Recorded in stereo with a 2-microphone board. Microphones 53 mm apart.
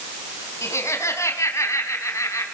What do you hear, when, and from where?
0.6 s laughter: 65° left (ahead or behind), 4 m; by 2.5 s 80° left, 4.5 m